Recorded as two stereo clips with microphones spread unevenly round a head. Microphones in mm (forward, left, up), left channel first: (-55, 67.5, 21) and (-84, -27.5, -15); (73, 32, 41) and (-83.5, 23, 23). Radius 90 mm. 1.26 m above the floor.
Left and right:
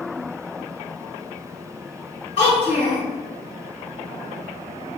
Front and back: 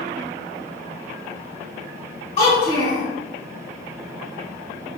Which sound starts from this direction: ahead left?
A child speaking, at 2.4 s.